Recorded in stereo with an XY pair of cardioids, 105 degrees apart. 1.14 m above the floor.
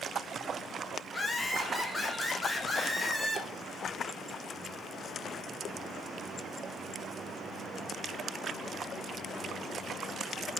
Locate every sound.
1.1 s laughter: 15° left, 0.9 m